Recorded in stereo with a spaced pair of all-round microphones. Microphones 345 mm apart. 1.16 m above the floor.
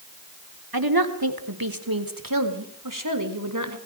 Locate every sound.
0.7 s a woman speaking: 80° right, 3.5 m; by 3.8 s 55° right (ahead or behind), 4.5 m